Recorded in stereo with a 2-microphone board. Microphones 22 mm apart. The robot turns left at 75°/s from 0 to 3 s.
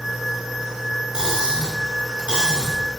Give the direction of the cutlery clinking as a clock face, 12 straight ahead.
1 o'clock.